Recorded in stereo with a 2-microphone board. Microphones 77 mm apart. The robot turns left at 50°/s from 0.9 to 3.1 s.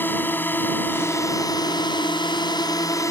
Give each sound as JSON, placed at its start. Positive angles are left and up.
{"t": 0.0, "sound": "a drone", "azimuth_deg": 155}